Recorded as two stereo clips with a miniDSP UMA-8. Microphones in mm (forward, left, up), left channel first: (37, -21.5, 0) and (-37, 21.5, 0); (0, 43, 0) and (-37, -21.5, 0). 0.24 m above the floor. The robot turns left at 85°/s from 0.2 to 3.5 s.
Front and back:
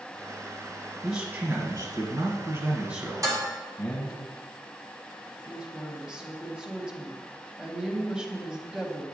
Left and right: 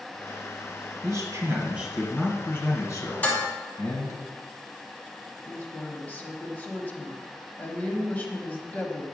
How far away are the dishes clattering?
About 1.3 m.